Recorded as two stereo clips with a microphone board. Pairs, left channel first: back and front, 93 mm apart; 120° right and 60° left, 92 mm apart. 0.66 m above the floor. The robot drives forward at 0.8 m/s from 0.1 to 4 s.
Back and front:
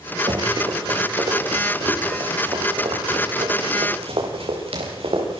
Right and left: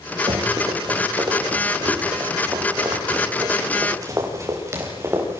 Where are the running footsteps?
30° left, 7 m; by 5.4 s 5° right, 9 m.